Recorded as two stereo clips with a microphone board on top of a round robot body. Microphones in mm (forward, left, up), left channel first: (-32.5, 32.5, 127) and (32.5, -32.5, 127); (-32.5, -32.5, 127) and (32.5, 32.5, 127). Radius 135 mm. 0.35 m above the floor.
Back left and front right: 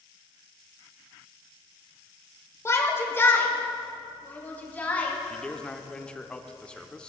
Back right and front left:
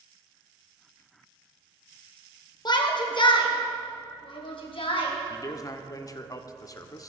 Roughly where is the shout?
Behind.